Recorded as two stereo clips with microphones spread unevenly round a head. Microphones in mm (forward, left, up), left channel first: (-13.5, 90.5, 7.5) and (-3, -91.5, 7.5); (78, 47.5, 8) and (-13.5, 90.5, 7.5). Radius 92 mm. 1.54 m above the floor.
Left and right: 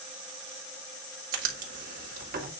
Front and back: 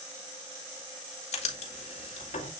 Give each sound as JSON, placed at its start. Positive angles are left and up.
{"t": 1.3, "sound": "writing", "azimuth_deg": -45, "distance_m": 2.0}